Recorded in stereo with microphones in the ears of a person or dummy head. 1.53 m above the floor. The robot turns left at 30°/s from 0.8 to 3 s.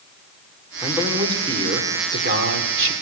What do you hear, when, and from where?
0.8 s a man speaking: 5° right, 5 m; by 2.9 s 70° right, 5 m